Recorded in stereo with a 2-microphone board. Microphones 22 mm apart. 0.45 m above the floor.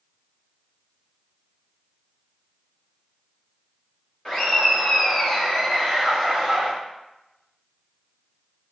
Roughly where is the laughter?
Left.